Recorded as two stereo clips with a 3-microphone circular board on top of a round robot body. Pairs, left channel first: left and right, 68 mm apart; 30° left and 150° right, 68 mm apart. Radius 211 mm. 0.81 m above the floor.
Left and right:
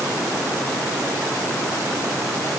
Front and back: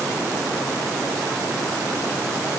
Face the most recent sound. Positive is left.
No sound to turn to.